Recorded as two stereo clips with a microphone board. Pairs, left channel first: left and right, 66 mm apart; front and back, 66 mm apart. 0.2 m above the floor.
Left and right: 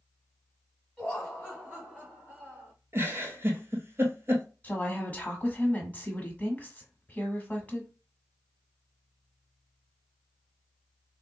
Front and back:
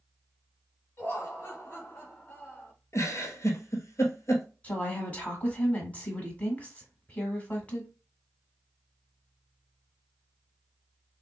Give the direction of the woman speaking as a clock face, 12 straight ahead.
10 o'clock.